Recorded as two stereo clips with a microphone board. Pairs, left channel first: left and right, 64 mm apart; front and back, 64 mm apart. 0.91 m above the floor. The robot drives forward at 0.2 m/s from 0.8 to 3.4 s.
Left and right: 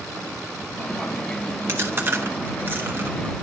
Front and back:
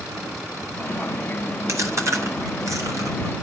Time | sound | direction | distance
1.7 | chewing | 140° right | 1.2 m